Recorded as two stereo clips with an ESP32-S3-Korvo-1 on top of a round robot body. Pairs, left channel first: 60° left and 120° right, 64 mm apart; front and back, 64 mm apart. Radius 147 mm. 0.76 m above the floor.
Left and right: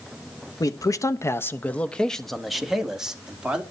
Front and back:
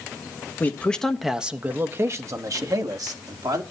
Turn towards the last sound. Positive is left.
turn(degrees=165)